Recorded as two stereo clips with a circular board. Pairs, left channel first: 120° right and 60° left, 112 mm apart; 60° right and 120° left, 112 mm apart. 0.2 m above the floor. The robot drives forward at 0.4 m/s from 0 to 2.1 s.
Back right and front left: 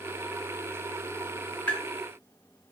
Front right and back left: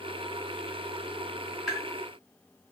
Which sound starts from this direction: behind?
Tapping, at 1.7 s.